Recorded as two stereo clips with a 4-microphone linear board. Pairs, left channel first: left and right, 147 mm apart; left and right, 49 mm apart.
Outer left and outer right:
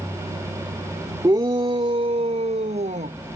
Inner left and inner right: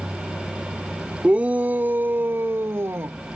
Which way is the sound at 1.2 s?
25° right (ahead or behind).